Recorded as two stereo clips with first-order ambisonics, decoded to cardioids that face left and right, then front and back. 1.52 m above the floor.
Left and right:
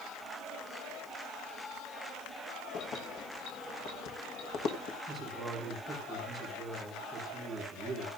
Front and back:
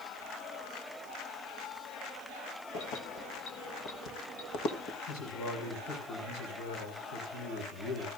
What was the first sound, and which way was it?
Keys jangling, 40° left.